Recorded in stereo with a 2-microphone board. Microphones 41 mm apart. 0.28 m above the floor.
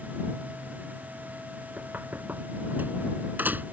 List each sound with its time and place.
1.8 s knocking: 50° right (ahead or behind)